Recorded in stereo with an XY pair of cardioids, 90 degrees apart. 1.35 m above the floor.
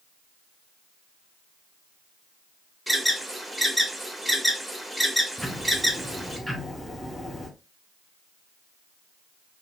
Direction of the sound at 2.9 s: 5° left.